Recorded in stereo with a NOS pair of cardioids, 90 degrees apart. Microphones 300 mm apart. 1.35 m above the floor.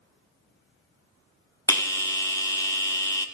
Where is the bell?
10° left, 1.0 m.